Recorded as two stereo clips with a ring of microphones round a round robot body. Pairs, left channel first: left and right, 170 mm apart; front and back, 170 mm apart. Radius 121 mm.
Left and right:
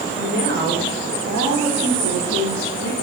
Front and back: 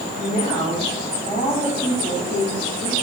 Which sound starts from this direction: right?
A woman speaking, at 0.1 s.